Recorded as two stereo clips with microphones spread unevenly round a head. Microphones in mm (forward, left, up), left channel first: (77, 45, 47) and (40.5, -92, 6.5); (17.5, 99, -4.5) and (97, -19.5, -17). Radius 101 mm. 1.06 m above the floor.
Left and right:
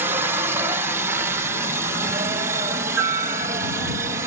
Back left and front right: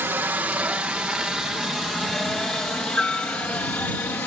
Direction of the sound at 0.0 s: 120° right.